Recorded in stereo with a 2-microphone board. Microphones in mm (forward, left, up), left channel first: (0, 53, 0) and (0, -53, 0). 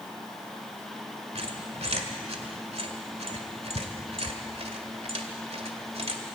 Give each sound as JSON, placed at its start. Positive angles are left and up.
{"t": 1.4, "sound": "a squeak", "side_deg": -75, "distance_m": 1.7}